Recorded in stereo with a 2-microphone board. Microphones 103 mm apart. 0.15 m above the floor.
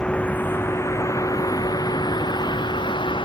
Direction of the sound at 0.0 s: 10° left (ahead or behind).